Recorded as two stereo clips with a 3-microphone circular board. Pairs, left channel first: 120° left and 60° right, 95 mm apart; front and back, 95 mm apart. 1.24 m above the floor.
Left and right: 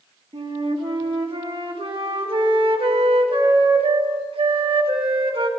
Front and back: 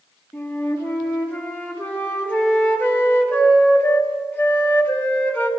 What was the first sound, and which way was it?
A flute, 75° right.